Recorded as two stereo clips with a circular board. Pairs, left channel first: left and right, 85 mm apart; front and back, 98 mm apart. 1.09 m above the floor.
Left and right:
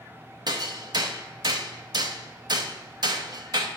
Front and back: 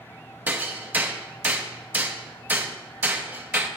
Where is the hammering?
110° right, 0.7 m.